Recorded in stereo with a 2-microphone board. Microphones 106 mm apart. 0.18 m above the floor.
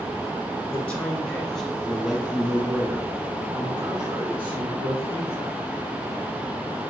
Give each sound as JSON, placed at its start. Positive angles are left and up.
{"t": 0.7, "sound": "a man speaking", "side_deg": 20, "distance_m": 3.0}